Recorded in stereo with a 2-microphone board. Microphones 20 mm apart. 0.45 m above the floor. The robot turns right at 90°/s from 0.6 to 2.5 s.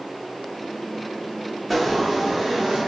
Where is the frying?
170° left, 0.8 m; by 2.8 s 120° right, 0.8 m.